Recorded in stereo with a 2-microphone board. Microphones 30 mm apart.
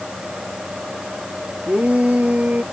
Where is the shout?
50° right (ahead or behind).